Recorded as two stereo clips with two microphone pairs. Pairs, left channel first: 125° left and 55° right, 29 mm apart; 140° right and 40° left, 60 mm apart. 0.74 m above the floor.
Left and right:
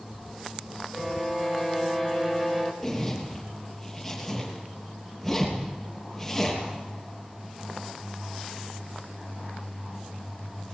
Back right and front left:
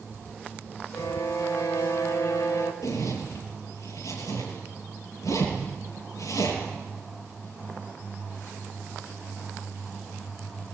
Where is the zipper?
150° right, 8 m.